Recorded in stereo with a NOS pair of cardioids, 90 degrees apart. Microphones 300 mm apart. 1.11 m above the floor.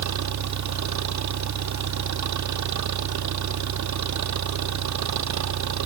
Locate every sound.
0.0 s an engine running: 65° right